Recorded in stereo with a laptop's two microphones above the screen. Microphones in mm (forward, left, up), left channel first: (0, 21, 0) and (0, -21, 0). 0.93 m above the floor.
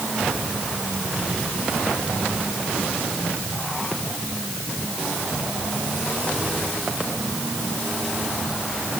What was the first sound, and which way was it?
Only background noise.